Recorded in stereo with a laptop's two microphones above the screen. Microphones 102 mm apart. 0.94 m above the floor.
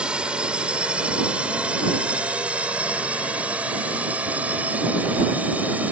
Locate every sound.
0.0 s a drone: 10° right (ahead or behind); by 5.9 s 15° right (ahead or behind)